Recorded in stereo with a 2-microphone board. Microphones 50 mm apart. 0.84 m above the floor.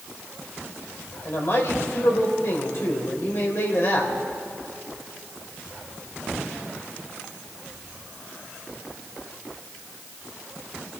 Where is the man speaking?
60° left (ahead or behind), 3.5 m.